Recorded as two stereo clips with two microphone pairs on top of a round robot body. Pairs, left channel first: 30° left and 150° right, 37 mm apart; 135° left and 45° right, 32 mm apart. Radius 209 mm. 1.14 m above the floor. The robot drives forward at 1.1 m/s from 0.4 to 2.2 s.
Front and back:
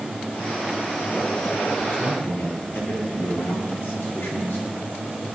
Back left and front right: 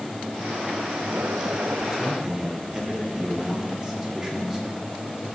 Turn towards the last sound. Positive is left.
turn(degrees=25)